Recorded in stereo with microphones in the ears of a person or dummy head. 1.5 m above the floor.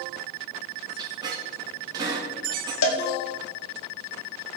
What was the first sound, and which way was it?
A squeak, 25° right (ahead or behind).